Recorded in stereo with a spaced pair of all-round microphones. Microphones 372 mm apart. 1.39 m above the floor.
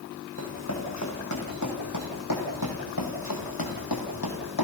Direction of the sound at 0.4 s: 40° left (ahead or behind).